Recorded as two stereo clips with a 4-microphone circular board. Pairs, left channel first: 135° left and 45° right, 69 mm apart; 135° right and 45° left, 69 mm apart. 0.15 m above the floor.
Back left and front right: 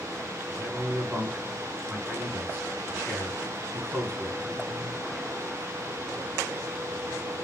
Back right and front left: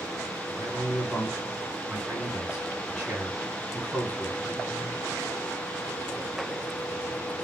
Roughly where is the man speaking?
Ahead.